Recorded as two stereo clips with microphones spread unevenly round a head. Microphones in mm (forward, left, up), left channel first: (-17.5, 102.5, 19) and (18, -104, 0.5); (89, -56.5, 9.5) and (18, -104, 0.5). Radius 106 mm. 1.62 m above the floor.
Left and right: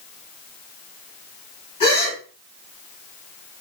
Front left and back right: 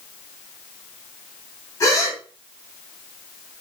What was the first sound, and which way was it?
A gasp, 55° left.